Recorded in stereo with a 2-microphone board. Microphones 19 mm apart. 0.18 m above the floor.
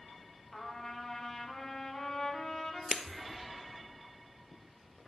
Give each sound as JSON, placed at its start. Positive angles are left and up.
{"t": 0.5, "sound": "a trumpet", "side_deg": 30, "distance_m": 1.2}
{"t": 2.9, "sound": "breaking glass", "side_deg": -40, "distance_m": 0.6}